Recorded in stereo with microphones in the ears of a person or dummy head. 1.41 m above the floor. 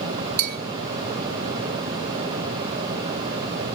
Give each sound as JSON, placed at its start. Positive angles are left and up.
{"t": 0.4, "sound": "a bell", "side_deg": -45, "distance_m": 0.5}